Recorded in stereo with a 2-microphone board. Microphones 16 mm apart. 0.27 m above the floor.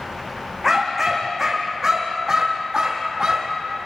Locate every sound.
0.6 s a dog barking: 15° right (ahead or behind), 5 m; by 3.6 s 45° right (ahead or behind), 3 m